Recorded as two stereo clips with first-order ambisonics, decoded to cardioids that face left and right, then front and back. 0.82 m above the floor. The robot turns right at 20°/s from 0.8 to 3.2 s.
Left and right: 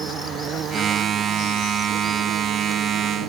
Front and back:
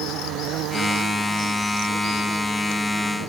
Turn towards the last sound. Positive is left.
turn(degrees=-100)